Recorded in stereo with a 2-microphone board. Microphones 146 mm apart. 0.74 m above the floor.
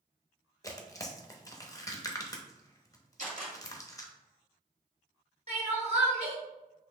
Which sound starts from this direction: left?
Tearing paper, at 0.6 s.